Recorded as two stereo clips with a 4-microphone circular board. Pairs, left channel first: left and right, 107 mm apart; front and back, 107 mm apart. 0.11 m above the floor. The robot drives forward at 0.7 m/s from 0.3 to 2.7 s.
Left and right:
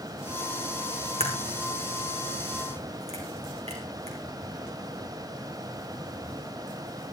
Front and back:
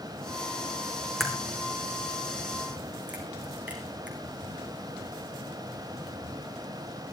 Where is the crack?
90° right, 4 m; by 4.2 s 105° right, 4 m.